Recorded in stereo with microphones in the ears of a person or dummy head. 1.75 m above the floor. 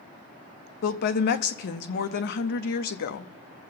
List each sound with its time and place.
0.8 s a woman speaking: 55° left (ahead or behind), 0.8 m